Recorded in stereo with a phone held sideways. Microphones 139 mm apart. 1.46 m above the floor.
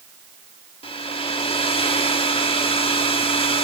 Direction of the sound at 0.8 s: 40° left (ahead or behind).